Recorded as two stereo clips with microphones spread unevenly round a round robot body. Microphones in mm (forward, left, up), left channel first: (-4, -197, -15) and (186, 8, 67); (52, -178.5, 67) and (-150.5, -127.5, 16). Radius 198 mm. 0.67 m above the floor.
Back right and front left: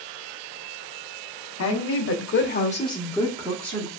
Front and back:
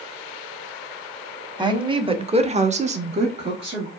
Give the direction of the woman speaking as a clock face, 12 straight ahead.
4 o'clock.